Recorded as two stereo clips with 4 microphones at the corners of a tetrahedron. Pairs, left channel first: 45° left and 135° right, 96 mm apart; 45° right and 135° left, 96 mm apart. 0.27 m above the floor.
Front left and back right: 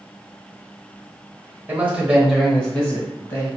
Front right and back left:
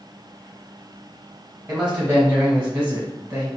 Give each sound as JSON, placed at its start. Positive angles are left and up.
{"t": 1.7, "sound": "a man speaking", "azimuth_deg": -160, "distance_m": 1.0}